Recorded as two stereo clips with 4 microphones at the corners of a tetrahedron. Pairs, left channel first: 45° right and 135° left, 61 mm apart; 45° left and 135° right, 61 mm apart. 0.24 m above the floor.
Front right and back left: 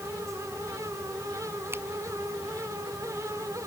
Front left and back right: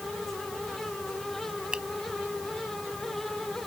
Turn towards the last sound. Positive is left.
turn(degrees=155)